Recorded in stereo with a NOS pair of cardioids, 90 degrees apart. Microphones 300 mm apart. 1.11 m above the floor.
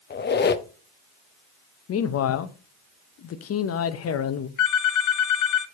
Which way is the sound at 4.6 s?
65° left.